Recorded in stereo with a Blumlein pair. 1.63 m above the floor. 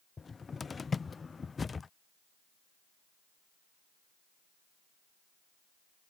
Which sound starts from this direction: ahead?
A cupboard door, at 0.2 s.